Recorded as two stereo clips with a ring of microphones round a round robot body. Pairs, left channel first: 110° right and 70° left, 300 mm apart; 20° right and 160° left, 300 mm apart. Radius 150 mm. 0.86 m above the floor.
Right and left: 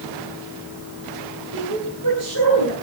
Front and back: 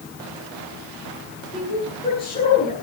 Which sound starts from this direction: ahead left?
A woman speaking, at 1.5 s.